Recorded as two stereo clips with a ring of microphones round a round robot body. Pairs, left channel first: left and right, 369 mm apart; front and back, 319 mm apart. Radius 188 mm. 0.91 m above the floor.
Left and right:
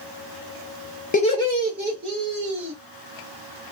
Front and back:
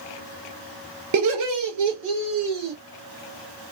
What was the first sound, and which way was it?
Laughter, 155° left.